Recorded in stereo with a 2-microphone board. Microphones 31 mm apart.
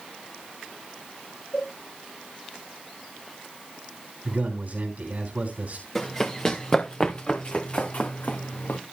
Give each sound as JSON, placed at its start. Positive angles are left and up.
{"t": 1.5, "sound": "a cowbell", "side_deg": 40, "distance_m": 6.0}
{"t": 4.2, "sound": "a man speaking", "side_deg": -55, "distance_m": 3.0}
{"t": 6.0, "sound": "running footsteps", "side_deg": 15, "distance_m": 2.5}